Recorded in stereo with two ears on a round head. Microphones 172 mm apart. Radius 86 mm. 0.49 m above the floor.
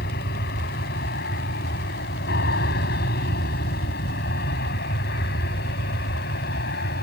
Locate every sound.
0.0 s an aircraft: 55° left (ahead or behind)